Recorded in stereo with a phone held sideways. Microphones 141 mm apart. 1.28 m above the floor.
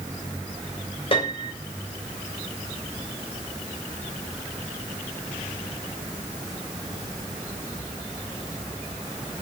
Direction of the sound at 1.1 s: 40° left (ahead or behind).